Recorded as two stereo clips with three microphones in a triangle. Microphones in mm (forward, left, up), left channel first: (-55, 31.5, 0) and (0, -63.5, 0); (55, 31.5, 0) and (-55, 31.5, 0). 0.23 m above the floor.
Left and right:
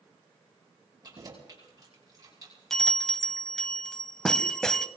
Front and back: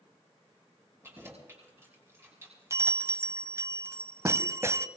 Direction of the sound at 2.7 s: 160° right.